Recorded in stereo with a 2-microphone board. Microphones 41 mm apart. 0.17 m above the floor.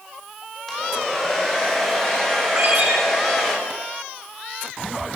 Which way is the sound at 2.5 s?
60° right (ahead or behind).